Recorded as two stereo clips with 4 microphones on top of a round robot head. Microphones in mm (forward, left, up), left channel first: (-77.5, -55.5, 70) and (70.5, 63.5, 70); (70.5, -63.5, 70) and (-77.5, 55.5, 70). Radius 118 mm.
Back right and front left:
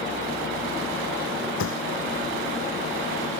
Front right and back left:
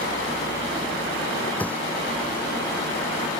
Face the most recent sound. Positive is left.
turn(degrees=-120)